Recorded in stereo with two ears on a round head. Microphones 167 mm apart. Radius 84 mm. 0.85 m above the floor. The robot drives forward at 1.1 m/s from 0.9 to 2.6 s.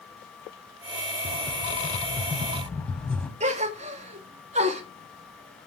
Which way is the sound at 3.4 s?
35° right (ahead or behind).